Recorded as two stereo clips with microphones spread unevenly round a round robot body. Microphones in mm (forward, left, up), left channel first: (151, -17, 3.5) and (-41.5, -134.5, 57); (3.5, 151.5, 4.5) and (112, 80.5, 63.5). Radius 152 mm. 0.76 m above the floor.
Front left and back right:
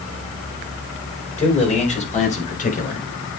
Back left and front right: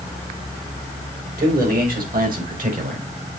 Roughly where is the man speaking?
Ahead right.